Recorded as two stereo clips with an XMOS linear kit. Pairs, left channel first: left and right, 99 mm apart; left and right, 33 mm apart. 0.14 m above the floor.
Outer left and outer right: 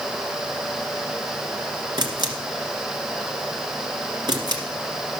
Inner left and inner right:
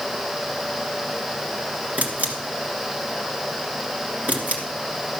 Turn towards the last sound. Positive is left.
turn(degrees=-45)  # may be behind; listen again after turning